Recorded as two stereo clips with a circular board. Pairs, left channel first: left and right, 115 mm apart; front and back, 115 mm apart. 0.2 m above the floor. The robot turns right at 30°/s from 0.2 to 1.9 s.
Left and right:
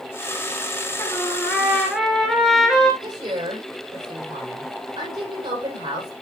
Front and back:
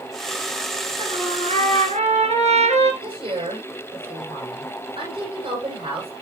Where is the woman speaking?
135° right, 7 m.